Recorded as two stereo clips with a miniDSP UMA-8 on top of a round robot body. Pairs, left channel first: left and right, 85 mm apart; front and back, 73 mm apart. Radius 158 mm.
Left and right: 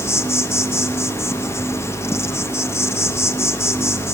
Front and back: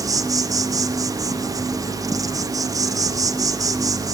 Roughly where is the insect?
Behind left.